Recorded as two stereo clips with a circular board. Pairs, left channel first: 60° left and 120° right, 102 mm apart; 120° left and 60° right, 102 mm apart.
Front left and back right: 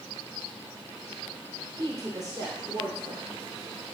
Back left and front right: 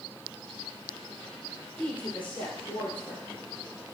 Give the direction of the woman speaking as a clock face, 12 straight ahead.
6 o'clock.